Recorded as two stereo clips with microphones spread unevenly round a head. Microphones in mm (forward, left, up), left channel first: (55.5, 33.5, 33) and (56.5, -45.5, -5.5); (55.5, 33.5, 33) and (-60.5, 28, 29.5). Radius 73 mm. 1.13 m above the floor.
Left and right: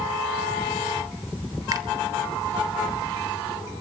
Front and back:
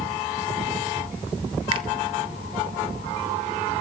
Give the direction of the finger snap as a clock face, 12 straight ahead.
4 o'clock.